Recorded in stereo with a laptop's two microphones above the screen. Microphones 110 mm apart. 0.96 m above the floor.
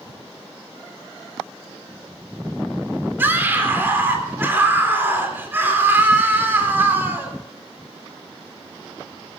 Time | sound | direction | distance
3.2 | a scream | 20° right (ahead or behind) | 3.5 m